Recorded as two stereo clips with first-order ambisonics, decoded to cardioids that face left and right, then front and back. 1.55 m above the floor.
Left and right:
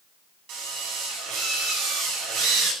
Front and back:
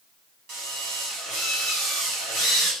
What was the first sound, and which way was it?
A drill, 125° right.